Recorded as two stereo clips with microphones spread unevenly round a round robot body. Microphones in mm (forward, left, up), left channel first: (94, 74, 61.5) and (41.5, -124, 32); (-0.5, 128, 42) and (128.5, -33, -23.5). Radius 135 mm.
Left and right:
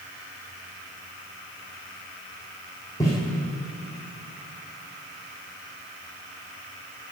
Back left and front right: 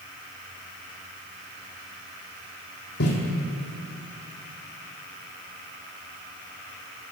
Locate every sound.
3.0 s footsteps: 150° left, 1.9 m